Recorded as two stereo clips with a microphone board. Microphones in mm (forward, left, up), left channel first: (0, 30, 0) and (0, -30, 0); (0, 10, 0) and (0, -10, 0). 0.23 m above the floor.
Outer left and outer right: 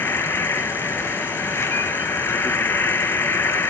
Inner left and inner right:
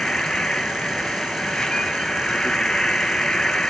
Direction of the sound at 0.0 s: 45° left (ahead or behind).